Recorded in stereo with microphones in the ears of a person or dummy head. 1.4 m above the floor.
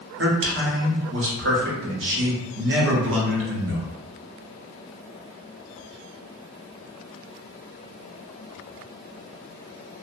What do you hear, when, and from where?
0.2 s a man speaking: 60° right (ahead or behind), 0.8 m